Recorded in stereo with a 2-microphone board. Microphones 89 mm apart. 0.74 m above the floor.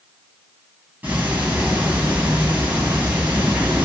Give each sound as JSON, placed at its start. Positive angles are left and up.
{"t": 1.0, "sound": "ticking", "side_deg": -20, "distance_m": 2.5}